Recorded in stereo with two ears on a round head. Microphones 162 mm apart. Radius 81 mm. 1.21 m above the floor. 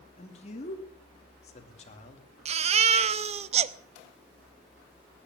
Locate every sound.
0.2 s a man speaking: 35° left (ahead or behind), 2.5 m
2.5 s a baby crying: 35° right (ahead or behind), 0.6 m